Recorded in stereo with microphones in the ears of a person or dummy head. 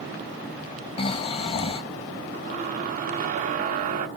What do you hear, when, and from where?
1.0 s snoring: 35° left (ahead or behind), 0.5 m
2.3 s a squeak: 45° right (ahead or behind), 0.7 m